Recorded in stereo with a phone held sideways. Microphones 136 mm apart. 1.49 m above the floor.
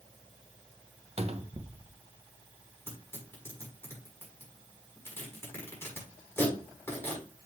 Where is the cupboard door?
50° right (ahead or behind), 0.7 m.